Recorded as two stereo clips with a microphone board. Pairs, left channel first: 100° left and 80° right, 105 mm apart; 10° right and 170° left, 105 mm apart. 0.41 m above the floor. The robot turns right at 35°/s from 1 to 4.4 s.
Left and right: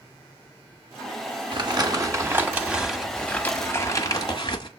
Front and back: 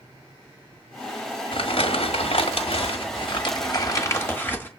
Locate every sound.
1.5 s crumpling: 40° right, 1.6 m; by 4.7 s 60° left, 1.6 m